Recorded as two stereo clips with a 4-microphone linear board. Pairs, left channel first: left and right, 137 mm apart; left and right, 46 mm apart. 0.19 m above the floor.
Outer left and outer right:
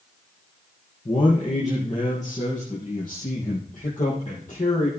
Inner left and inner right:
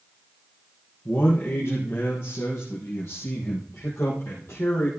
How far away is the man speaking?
About 3.5 m.